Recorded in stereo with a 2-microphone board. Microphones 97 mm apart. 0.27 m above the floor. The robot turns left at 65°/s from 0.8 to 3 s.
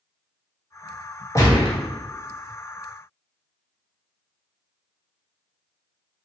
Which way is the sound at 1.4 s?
35° left (ahead or behind).